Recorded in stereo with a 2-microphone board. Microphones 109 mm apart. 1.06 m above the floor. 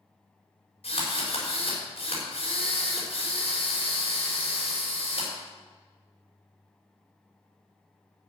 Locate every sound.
0.8 s a drill: 60° left (ahead or behind), 5.5 m